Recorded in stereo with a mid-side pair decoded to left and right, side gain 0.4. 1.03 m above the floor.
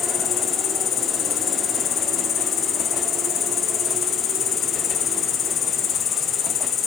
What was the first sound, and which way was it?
An insect, 70° left.